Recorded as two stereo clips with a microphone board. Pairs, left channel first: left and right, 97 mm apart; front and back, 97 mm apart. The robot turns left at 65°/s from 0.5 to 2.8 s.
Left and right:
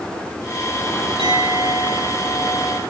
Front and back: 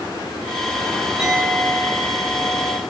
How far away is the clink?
About 9.5 m.